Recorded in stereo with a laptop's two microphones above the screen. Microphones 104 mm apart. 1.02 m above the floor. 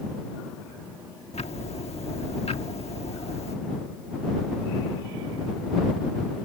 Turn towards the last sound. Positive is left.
turn(degrees=85)